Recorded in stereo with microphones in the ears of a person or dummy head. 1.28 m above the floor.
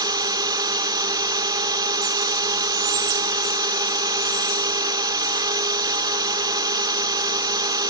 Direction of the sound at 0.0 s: 20° right (ahead or behind).